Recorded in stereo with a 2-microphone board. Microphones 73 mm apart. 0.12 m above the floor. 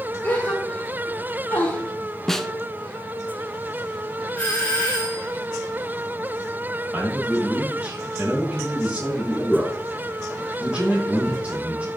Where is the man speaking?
20° right (ahead or behind), 5 m.